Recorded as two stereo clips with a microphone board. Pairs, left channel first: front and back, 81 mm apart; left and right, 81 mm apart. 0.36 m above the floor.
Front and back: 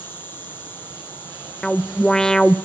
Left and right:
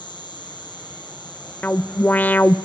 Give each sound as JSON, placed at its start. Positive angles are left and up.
{"t": 0.0, "sound": "an insect", "azimuth_deg": 65, "distance_m": 5.5}
{"t": 1.6, "sound": "an alarm", "azimuth_deg": 70, "distance_m": 0.8}